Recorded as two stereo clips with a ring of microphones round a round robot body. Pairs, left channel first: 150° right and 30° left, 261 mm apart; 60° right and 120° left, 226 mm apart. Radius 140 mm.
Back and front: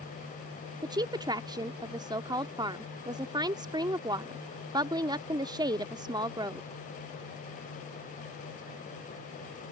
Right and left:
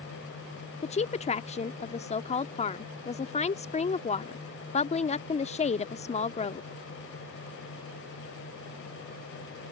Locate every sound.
0.8 s a woman speaking: 30° right